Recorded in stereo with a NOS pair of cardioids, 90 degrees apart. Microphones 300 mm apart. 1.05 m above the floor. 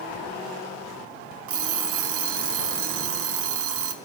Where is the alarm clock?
50° right, 1.3 m.